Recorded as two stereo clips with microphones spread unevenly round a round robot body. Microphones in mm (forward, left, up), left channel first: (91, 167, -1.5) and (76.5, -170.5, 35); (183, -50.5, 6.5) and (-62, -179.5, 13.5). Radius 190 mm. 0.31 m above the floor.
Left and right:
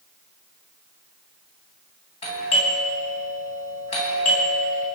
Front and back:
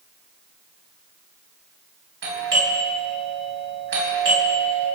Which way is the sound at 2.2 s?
155° left.